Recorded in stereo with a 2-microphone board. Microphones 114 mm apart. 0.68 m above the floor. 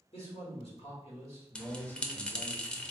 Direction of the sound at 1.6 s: 10° left (ahead or behind).